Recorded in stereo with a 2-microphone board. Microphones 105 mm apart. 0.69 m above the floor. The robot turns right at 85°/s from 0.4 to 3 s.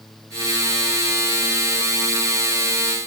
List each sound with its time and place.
Only background noise.